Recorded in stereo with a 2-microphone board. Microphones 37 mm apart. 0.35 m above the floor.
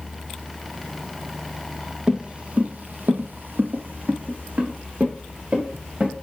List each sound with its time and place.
2.1 s footsteps: 25° right (ahead or behind), 1.0 m; by 6.1 s 35° right (ahead or behind), 2 m